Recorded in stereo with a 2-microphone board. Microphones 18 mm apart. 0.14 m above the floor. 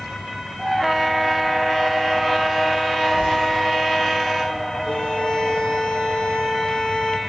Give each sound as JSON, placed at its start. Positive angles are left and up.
{"t": 3.2, "sound": "footsteps", "side_deg": -90, "distance_m": 9.5}
{"t": 4.8, "sound": "a violin", "side_deg": 55, "distance_m": 6.0}